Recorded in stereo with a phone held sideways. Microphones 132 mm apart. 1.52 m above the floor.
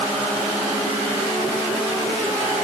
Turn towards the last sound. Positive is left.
No sound to turn to.